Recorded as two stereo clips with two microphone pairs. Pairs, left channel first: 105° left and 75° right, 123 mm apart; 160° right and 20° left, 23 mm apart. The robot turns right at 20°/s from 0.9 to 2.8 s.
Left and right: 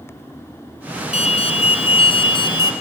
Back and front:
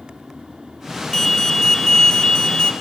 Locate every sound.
1.1 s an alarm: 125° left, 4 m; by 2.7 s 155° left, 4 m